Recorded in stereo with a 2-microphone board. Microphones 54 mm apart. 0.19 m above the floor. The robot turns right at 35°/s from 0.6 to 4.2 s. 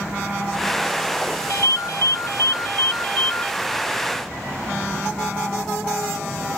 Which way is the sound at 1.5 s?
75° left.